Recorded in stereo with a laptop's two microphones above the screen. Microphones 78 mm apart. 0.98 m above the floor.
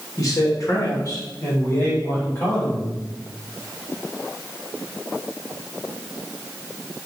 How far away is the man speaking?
About 1.1 m.